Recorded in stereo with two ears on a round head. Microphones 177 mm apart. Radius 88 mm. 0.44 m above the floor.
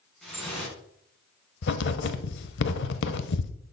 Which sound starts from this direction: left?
Writing, at 1.6 s.